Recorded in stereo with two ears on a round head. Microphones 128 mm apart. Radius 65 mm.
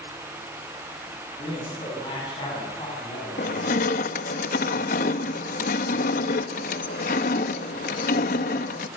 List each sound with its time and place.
1.4 s a man speaking: 35° left (ahead or behind), 9.5 m; by 4.4 s 30° left (ahead or behind), 7 m
3.4 s crushing: 70° left (ahead or behind), 1.1 m